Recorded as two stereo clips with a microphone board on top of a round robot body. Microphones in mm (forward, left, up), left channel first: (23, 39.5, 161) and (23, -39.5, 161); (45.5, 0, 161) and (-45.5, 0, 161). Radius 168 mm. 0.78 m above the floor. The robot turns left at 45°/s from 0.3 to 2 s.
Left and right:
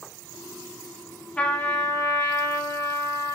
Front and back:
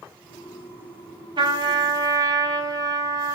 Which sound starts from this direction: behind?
A trumpet, at 1.4 s.